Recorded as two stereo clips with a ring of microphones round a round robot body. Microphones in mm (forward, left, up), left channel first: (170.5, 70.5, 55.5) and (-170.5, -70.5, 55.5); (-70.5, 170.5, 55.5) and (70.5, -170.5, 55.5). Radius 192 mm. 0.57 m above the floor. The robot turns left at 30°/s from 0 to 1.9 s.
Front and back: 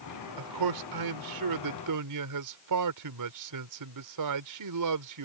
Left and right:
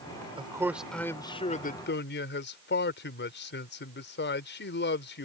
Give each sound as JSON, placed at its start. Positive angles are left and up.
{"t": 0.4, "sound": "a man speaking", "azimuth_deg": -145}